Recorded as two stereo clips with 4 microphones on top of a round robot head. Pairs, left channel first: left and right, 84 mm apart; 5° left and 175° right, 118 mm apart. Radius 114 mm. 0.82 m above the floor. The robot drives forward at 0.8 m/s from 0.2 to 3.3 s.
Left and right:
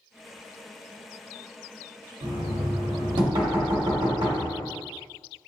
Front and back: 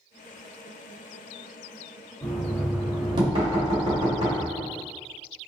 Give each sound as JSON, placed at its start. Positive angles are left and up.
{"t": 2.2, "sound": "knocking", "azimuth_deg": -75, "distance_m": 0.8}